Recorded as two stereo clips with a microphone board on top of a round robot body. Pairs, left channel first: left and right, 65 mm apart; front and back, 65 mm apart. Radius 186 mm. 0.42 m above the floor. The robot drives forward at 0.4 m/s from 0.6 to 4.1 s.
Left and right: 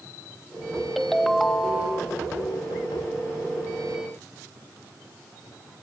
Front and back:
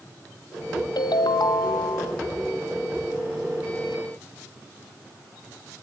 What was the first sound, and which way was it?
A ringtone, straight ahead.